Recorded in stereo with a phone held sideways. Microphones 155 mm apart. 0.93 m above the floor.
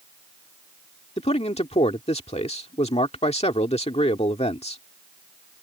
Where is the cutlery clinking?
I don't hear cutlery clinking.